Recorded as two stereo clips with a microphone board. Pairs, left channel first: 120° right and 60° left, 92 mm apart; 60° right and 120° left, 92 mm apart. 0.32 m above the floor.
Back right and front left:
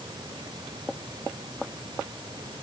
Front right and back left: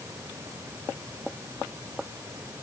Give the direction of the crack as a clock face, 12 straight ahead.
No crack in this recording.